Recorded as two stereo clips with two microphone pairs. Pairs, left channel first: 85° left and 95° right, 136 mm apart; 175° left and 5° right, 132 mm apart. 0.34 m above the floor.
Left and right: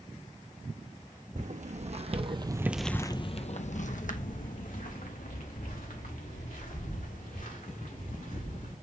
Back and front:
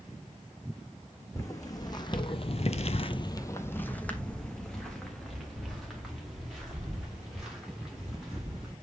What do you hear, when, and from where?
1.4 s footsteps: 120° right, 1.4 m; by 8.7 s 80° left, 4.5 m